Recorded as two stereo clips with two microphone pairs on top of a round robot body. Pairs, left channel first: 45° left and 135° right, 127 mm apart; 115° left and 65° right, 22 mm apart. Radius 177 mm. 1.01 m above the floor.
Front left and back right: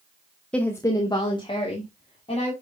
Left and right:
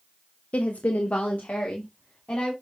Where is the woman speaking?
125° left, 0.7 m; by 2.5 s 90° left, 3 m.